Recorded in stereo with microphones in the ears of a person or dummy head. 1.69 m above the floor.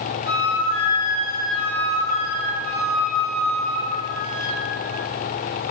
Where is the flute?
50° right (ahead or behind), 1.4 m.